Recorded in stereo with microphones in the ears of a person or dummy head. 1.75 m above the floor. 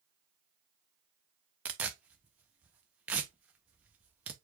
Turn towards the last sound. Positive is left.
turn(degrees=-5)  # may be behind; listen again after turning